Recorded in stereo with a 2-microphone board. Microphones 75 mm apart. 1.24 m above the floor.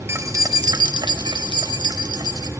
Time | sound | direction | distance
0.1 | keys jangling | 35° right (ahead or behind) | 1.1 m